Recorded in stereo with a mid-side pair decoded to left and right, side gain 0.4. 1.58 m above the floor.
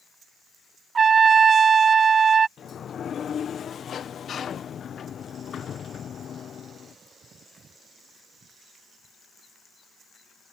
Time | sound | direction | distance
0.9 | a trumpet | 45° right | ?
2.6 | a sliding door | 55° left | ?